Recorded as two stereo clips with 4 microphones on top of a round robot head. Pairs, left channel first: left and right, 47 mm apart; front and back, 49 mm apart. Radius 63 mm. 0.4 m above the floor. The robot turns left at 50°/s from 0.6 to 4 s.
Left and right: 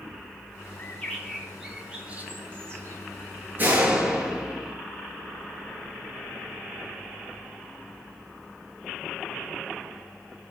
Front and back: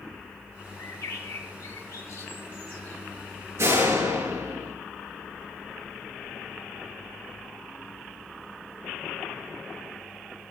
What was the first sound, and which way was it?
A bird, 40° left.